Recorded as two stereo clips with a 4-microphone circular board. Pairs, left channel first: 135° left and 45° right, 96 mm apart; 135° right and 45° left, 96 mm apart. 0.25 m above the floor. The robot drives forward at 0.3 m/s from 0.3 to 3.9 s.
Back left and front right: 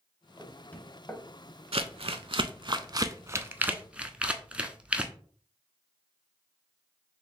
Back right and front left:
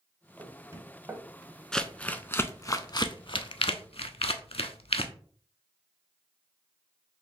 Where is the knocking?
60° left, 0.8 m; by 1.2 s 90° left, 0.7 m.